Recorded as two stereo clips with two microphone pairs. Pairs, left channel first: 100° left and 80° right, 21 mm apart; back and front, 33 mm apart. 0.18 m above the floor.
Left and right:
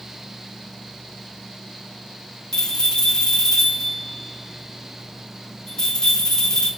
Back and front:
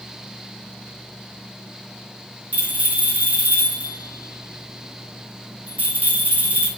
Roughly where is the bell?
Ahead left.